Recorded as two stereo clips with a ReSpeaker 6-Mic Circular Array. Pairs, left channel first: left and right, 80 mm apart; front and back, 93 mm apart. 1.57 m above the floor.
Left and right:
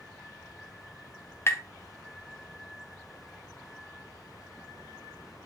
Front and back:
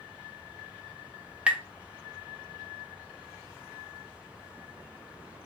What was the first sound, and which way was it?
Tapping, 110° left.